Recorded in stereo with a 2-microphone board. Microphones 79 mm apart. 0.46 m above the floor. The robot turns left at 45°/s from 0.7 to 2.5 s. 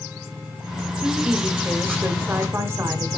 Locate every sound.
1.0 s a woman speaking: 15° right (ahead or behind), 1.5 m; by 3.2 s 30° right (ahead or behind), 1.5 m